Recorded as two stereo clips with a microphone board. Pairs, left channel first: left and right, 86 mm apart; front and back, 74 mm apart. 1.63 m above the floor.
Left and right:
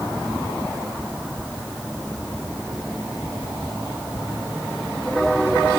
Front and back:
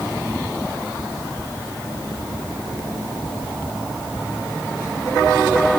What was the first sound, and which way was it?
Only background noise.